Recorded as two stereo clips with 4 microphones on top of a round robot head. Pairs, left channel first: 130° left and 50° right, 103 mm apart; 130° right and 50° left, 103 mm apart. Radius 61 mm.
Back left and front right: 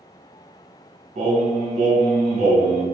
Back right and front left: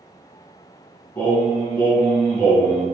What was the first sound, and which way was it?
Singing, 55° right.